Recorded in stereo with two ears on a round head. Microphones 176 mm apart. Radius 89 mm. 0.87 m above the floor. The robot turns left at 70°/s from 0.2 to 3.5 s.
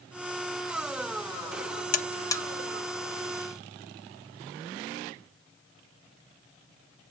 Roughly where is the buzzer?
Left.